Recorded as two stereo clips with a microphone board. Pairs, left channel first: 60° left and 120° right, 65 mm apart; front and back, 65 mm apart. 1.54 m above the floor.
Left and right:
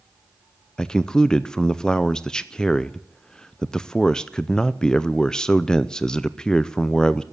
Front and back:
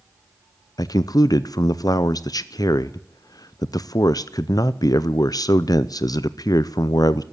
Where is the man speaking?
20° right, 0.5 m.